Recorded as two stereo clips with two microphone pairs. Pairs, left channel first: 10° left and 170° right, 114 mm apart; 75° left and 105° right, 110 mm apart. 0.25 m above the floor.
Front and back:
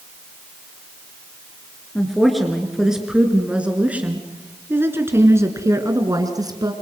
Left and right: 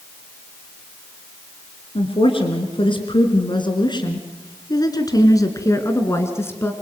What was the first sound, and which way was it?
A woman speaking, 95° left.